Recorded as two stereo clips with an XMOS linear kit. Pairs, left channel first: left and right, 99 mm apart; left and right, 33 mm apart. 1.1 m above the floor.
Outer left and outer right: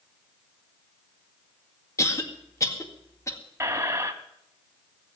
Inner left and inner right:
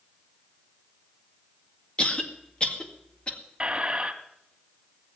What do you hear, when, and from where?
2.0 s a cough: 30° left (ahead or behind), 2 m
3.6 s a squeak: 25° right (ahead or behind), 1.0 m